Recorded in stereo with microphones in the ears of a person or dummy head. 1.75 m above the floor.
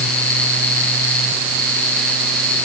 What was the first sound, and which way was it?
Only background noise.